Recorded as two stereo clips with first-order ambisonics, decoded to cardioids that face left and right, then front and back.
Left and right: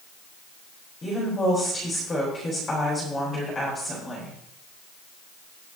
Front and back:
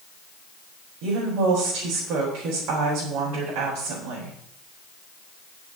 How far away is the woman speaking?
About 4 m.